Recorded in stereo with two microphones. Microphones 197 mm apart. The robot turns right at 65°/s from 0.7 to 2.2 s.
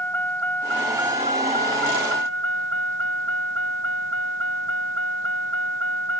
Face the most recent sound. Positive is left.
turn(degrees=-90)